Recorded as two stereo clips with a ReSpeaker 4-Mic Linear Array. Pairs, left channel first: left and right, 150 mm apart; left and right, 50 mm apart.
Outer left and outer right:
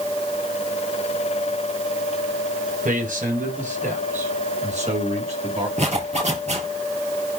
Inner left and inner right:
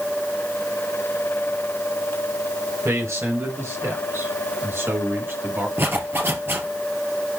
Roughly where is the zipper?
Right.